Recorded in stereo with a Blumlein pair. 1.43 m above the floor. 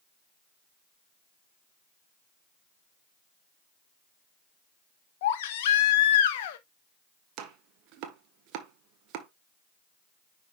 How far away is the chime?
I don't hear a chime.